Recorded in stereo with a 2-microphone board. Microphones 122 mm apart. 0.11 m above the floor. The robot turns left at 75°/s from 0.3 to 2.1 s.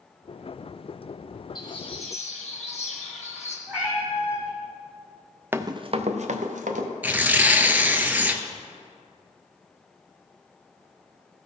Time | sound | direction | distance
1.6 | a bird | 150° left | 2.5 m
3.7 | a cat meowing | 10° right (ahead or behind) | 2.5 m
5.5 | running footsteps | 15° right (ahead or behind) | 0.6 m
7.0 | tearing paper | 15° right (ahead or behind) | 0.7 m